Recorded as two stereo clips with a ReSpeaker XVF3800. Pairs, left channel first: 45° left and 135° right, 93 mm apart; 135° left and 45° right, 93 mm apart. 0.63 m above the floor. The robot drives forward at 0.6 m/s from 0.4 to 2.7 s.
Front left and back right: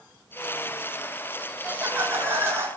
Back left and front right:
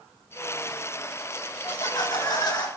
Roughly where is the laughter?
Behind left.